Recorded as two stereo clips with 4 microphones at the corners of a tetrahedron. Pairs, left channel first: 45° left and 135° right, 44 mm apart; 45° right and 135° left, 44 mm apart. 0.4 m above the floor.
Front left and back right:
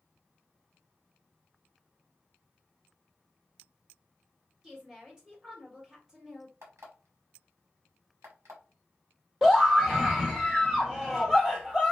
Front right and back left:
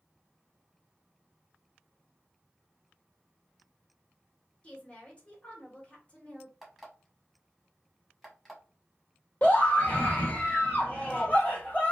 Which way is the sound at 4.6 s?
75° right.